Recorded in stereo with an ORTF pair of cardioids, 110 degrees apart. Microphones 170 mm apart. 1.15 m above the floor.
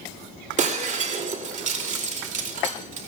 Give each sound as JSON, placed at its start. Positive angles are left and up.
{"t": 0.6, "sound": "breaking glass", "azimuth_deg": -45, "distance_m": 2.5}